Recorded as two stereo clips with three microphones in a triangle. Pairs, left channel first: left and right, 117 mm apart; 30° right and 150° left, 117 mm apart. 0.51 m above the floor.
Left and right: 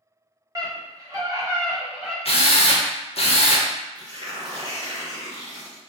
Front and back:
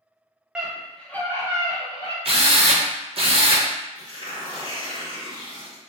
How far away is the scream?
About 1.0 m.